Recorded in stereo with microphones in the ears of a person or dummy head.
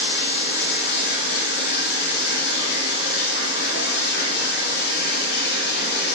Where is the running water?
60° left (ahead or behind), 2.5 m.